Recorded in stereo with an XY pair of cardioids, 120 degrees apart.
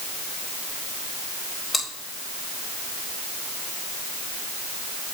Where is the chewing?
25° left, 4.5 m.